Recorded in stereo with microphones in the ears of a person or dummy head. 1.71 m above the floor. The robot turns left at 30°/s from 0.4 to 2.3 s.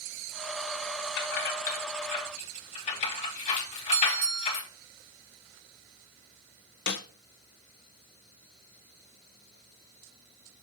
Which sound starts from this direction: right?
A bell, at 3.9 s.